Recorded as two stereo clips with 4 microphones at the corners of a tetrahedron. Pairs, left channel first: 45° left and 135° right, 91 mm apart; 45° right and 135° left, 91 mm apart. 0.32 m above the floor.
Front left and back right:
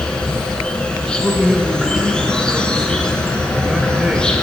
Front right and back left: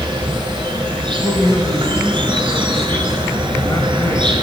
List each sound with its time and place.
0.0 s an insect: 125° left, 1.1 m
1.1 s a man speaking: 60° right, 1.2 m